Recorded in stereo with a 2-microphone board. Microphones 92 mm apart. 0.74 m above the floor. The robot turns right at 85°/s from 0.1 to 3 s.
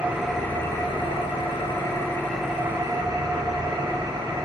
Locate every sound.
0.0 s an engine running: 15° right, 1.3 m; by 4.5 s 130° right, 1.3 m